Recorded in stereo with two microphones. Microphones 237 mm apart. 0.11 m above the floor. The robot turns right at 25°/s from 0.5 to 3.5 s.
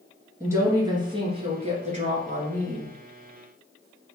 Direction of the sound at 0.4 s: 160° right.